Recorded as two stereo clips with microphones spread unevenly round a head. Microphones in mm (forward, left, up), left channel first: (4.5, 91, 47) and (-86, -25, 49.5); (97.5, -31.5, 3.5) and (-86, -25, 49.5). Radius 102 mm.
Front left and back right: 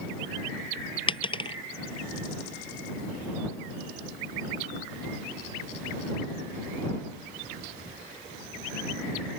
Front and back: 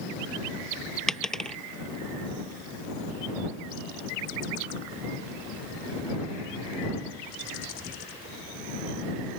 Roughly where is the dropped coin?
Left.